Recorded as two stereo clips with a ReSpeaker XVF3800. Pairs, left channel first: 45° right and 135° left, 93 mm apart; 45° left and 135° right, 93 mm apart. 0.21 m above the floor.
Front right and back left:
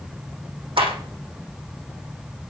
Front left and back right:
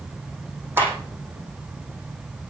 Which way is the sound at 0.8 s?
160° left.